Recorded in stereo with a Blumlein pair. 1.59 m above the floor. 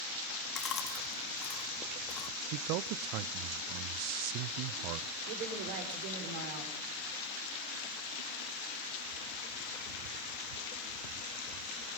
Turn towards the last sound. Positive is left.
turn(degrees=-50)